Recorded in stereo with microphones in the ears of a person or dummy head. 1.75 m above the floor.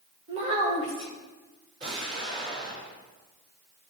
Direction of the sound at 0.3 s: 35° right (ahead or behind).